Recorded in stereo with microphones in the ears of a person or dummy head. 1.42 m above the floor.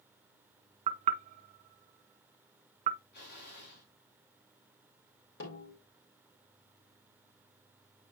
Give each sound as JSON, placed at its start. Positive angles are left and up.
{"t": 0.9, "sound": "knocking", "side_deg": -40, "distance_m": 0.7}
{"t": 3.1, "sound": "an explosion", "side_deg": 55, "distance_m": 5.0}
{"t": 5.4, "sound": "a snare drum", "side_deg": 65, "distance_m": 3.5}